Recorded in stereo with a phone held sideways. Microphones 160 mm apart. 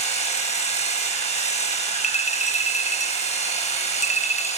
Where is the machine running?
45° left (ahead or behind), 8 m.